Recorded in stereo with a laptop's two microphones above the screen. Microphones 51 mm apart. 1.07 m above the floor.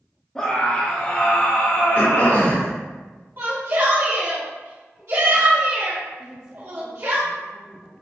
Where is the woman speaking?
20° right (ahead or behind), 0.9 m.